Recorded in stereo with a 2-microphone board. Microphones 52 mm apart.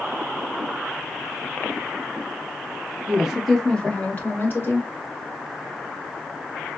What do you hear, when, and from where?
3.1 s a woman speaking: 25° right (ahead or behind), 1.4 m; by 4.9 s 50° left (ahead or behind), 2.5 m